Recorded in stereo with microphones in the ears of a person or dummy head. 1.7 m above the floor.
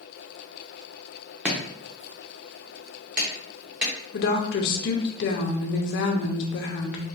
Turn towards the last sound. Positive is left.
turn(degrees=60)  # may be behind; listen again after turning